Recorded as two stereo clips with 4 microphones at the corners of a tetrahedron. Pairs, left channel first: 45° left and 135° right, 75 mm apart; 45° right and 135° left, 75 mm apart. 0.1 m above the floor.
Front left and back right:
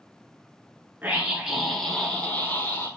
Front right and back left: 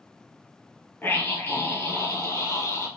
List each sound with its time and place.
1.0 s a scream: 85° right, 1.3 m; by 2.9 s 5° right, 1.8 m